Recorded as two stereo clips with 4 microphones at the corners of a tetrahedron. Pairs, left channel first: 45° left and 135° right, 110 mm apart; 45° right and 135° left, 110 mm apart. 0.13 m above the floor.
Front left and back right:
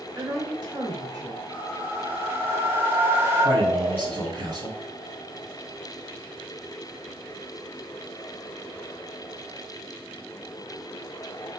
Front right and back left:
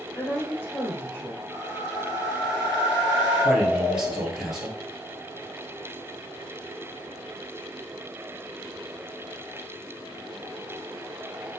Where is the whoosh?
160° right, 1.7 m.